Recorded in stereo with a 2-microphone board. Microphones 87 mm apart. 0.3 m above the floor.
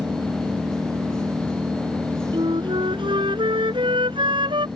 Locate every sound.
0.0 s an engine running: 35° right (ahead or behind)
2.3 s a flute: 75° right (ahead or behind)